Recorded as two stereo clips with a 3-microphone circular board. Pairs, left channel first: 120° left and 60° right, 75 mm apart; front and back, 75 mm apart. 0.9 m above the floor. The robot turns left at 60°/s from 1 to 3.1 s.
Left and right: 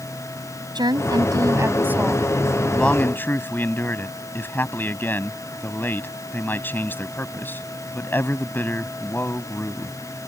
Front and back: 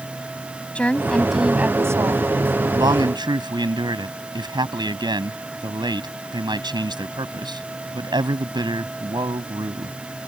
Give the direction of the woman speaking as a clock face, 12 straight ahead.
2 o'clock.